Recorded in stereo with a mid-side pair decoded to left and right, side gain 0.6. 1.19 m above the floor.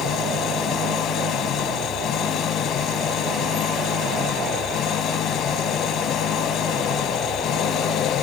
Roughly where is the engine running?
Ahead left.